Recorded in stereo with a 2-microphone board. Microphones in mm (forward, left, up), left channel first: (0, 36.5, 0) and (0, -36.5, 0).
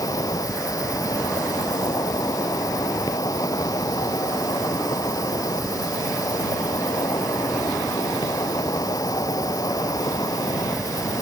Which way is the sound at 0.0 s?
65° left (ahead or behind).